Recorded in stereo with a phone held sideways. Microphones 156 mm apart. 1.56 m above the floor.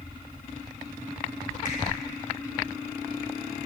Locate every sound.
1.6 s a finger snap: 60° left (ahead or behind), 4.5 m